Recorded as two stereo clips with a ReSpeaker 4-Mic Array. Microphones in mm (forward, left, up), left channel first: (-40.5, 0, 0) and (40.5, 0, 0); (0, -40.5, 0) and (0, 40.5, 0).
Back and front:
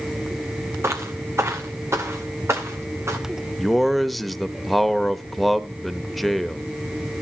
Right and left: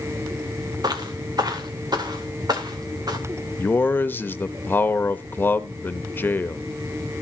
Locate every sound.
0.8 s footsteps: 55° left, 1.7 m
3.6 s a man speaking: 90° right, 0.9 m